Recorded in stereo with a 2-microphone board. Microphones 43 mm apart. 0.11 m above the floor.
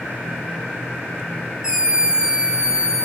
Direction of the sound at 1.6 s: 15° right (ahead or behind).